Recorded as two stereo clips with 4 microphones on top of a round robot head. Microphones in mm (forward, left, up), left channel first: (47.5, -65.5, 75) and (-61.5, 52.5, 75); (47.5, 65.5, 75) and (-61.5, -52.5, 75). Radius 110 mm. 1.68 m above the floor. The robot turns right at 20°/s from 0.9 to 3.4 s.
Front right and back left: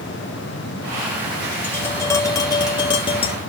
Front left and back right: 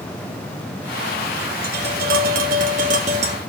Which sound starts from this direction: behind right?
Tapping, at 1.6 s.